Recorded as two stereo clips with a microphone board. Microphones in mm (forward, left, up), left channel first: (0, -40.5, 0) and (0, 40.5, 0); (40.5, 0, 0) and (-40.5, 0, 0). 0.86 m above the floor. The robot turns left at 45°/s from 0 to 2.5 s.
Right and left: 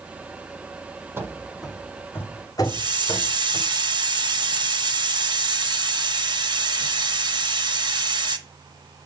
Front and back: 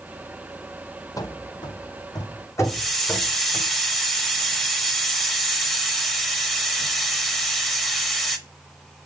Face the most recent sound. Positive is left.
turn(degrees=85)